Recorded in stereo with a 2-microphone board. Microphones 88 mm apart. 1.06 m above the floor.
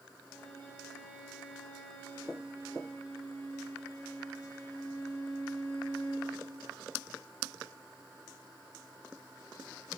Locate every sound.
0.2 s a violin: 15° left (ahead or behind), 7 m